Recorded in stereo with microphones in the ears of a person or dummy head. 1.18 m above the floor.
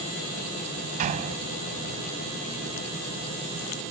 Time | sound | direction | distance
1.0 | a door slam | 45° right (ahead or behind) | ?